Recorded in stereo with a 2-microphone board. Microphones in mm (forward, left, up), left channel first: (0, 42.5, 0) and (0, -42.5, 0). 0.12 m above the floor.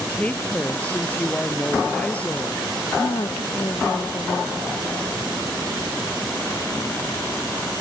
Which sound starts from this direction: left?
A woman speaking, at 3.0 s.